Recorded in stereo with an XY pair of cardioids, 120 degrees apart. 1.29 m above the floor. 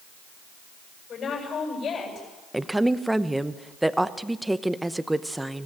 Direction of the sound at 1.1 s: 50° left.